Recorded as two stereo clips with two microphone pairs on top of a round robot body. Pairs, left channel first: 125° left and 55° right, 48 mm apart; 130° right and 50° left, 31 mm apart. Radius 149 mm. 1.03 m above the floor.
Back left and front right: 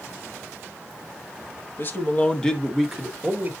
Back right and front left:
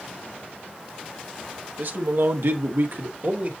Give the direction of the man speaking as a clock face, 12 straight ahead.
9 o'clock.